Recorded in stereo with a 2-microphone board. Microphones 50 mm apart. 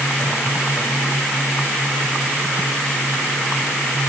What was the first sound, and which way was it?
Only background noise.